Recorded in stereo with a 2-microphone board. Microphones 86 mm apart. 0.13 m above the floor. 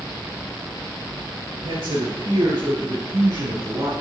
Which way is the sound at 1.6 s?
65° right (ahead or behind).